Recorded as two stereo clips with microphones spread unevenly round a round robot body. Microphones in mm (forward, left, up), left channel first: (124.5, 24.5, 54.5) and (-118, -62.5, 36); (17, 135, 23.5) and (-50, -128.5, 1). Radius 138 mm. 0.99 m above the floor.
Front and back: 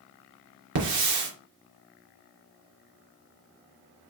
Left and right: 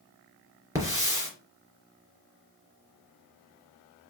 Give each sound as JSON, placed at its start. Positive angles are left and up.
{"t": 0.8, "sound": "a hiss", "azimuth_deg": 175, "distance_m": 3.0}